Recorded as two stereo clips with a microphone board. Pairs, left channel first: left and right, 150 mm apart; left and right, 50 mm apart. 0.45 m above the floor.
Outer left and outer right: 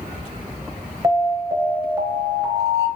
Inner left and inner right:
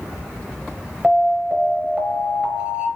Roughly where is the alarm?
Right.